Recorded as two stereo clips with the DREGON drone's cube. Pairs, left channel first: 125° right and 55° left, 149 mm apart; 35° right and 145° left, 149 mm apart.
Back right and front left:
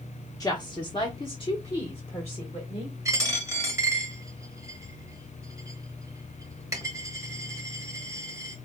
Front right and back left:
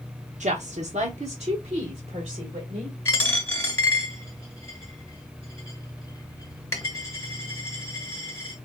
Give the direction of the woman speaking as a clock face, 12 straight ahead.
6 o'clock.